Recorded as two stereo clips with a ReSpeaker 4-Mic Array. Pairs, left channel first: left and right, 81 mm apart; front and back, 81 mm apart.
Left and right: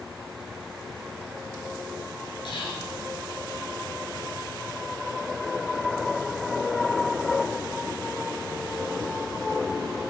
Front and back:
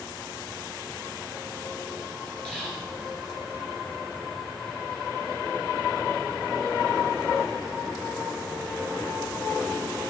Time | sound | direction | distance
2.5 | whispering | 75° left | 4 m